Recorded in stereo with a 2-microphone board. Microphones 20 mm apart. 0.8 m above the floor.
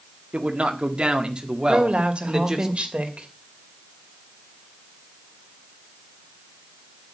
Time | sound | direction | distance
0.3 | a man speaking | 55° right (ahead or behind) | 1.8 m
1.7 | a woman speaking | 60° right (ahead or behind) | 2.5 m